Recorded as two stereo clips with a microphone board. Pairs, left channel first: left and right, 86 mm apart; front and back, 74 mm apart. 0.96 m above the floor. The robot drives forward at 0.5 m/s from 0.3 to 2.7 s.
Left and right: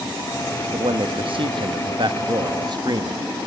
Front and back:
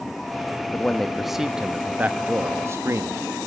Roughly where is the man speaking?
Right.